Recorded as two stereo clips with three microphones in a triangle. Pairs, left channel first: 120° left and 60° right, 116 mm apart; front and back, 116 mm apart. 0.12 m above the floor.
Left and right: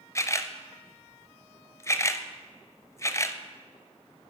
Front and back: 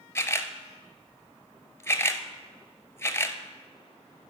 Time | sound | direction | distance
0.1 | a camera shutter | 60° left | 0.6 m